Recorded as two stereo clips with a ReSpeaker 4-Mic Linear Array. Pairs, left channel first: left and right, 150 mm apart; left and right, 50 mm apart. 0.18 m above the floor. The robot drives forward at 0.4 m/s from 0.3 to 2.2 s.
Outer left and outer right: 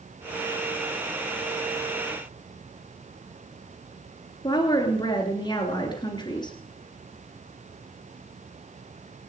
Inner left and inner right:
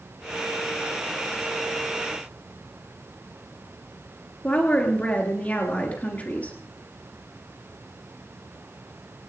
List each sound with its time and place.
4.4 s a woman speaking: 25° left (ahead or behind), 2.5 m